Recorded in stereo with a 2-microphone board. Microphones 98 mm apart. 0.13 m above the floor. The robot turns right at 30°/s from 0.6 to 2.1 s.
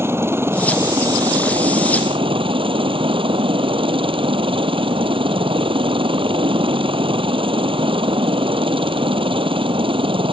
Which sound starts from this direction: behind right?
A helicopter, at 0.0 s.